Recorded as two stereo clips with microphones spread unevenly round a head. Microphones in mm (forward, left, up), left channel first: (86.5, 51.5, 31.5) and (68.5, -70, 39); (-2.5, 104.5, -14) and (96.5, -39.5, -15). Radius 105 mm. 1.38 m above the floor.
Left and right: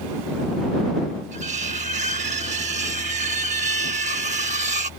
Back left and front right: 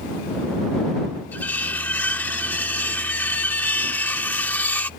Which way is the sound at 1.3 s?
155° right.